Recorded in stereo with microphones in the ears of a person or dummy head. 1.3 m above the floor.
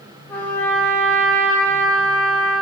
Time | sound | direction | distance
0.3 | a trumpet | 10° left (ahead or behind) | 0.8 m